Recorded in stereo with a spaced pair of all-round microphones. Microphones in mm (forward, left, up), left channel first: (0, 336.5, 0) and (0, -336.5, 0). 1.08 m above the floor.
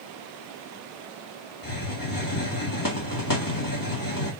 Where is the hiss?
30° left (ahead or behind), 2.5 m.